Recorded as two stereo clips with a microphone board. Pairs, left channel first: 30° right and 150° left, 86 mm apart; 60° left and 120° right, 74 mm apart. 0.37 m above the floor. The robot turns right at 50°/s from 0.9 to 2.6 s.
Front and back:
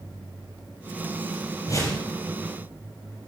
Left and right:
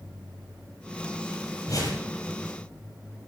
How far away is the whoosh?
About 6 m.